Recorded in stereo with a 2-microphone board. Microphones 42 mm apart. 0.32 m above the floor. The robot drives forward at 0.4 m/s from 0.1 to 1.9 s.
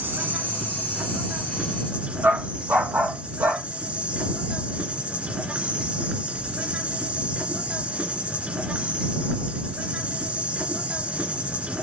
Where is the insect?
55° right (ahead or behind), 1.1 m; by 11.8 s 35° right (ahead or behind), 1.6 m.